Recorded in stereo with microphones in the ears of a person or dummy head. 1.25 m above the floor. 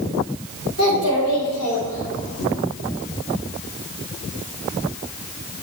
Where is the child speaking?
80° left, 3 m; by 2.5 s 70° left (ahead or behind), 1.8 m.